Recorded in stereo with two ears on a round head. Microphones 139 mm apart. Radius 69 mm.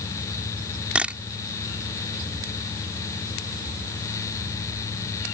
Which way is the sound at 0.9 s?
10° right (ahead or behind).